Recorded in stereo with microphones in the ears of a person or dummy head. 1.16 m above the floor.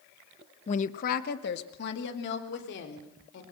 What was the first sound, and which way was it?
A woman speaking, 35° left (ahead or behind).